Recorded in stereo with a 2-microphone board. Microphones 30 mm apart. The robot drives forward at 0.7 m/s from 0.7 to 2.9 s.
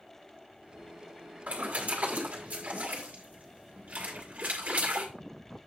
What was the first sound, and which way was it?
A splash, 60° right (ahead or behind).